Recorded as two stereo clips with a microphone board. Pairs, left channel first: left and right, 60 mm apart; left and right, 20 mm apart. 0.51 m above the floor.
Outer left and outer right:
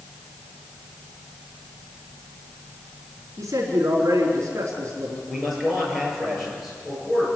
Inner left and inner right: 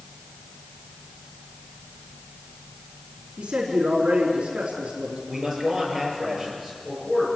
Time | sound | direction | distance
3.4 | a man speaking | 50° right (ahead or behind) | 4.5 m
5.3 | a man speaking | 5° right (ahead or behind) | 9 m